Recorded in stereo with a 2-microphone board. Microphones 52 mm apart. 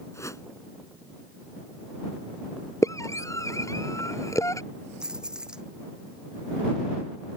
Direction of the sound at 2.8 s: 80° left.